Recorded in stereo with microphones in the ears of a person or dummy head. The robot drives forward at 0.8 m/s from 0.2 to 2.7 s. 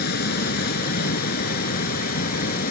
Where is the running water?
60° left (ahead or behind); by 2.7 s 50° left (ahead or behind).